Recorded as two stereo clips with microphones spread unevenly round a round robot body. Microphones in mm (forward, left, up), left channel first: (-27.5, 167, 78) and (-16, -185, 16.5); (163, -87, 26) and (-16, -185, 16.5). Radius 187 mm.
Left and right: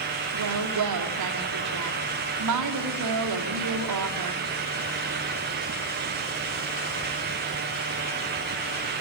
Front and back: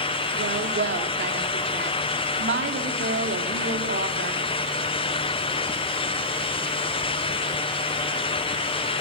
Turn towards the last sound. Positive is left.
turn(degrees=-125)